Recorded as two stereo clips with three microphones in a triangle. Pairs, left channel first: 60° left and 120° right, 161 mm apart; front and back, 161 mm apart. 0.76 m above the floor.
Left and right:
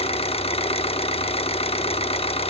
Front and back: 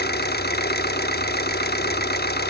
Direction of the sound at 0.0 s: 5° left.